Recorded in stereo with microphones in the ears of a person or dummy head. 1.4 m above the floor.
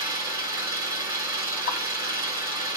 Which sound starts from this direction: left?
A pop, at 1.7 s.